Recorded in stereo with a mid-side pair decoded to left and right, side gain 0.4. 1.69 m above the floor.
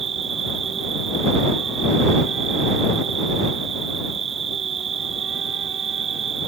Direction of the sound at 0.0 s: 55° right.